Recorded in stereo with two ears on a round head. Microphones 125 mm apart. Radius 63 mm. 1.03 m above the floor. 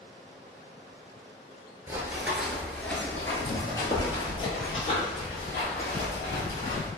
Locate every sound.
1.9 s running footsteps: 20° right (ahead or behind), 1.0 m; by 6.9 s 55° left (ahead or behind), 2.5 m